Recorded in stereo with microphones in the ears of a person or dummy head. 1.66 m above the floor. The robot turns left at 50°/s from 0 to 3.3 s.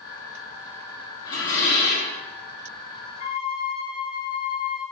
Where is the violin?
35° left (ahead or behind), 0.6 m.